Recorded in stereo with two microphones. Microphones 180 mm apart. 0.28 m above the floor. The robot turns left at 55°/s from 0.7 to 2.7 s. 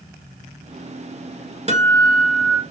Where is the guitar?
40° right, 1.5 m; by 2.6 s 90° right, 1.5 m.